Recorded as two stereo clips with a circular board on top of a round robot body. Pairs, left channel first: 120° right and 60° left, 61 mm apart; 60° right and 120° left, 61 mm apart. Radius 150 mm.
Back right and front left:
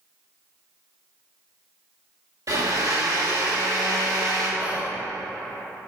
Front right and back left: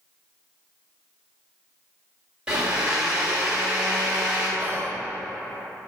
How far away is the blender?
About 2 m.